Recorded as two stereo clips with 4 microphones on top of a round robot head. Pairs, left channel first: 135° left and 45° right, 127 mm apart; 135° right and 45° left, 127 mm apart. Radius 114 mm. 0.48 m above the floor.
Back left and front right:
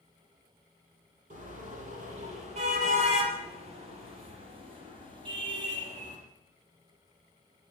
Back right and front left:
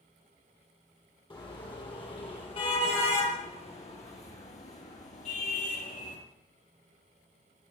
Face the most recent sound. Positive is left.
turn(degrees=-105)